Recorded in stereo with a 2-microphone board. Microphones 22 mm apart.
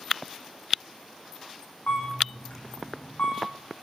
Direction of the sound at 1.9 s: 65° left (ahead or behind).